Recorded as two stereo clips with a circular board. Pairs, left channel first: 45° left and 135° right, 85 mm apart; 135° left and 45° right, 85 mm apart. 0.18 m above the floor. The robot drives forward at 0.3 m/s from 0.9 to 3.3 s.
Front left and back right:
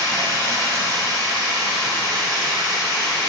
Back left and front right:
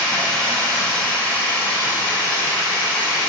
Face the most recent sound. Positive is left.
turn(degrees=-165)